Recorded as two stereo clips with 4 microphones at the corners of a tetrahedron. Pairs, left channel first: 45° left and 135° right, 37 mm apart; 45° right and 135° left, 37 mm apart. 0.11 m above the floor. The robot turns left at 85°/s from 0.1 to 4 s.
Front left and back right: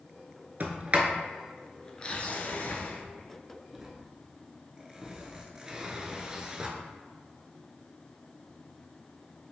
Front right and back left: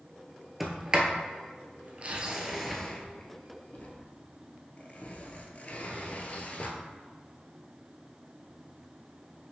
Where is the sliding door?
140° right, 0.7 m; by 6.7 s 70° right, 0.7 m.